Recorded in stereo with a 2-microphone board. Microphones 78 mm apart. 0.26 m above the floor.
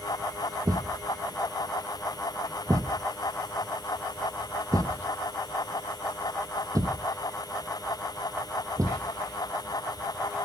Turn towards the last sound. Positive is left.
turn(degrees=-50)  # may be behind; listen again after turning